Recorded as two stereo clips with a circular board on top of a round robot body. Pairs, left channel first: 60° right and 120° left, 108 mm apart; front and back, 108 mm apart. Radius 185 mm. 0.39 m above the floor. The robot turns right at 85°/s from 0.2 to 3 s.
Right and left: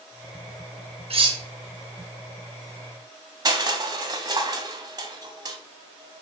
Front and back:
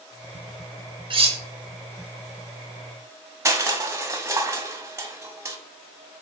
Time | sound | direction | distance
1.1 | cutlery clinking | 145° left | 0.8 m
3.5 | crushing | 135° left | 1.0 m